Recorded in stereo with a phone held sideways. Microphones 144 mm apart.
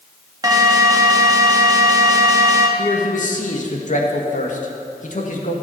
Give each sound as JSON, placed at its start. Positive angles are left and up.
{"t": 0.4, "sound": "an alarm", "side_deg": -25, "distance_m": 1.3}
{"t": 2.8, "sound": "a man speaking", "side_deg": 60, "distance_m": 2.0}